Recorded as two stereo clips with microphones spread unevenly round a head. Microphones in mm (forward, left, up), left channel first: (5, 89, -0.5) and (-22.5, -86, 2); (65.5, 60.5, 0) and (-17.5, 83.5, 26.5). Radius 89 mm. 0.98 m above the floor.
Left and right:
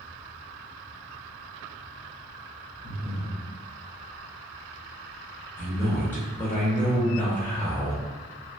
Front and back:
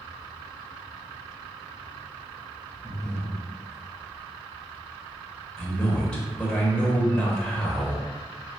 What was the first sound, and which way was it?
Breathing, 20° left.